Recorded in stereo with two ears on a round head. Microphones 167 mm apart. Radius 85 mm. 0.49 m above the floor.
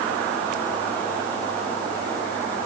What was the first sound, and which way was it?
Only background noise.